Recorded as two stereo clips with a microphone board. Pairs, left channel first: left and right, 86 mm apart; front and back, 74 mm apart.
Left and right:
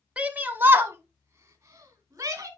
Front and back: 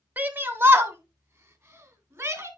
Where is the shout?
145° right, 1.1 m; by 2.5 s 135° right, 2.5 m.